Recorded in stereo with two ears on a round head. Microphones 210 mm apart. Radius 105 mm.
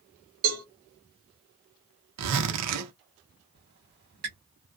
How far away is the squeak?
About 1.1 m.